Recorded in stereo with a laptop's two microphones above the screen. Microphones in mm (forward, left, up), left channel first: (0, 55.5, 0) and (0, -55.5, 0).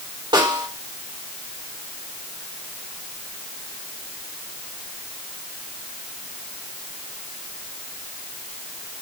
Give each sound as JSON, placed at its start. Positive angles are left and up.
{"t": 0.3, "sound": "a snare drum", "side_deg": -40, "distance_m": 3.0}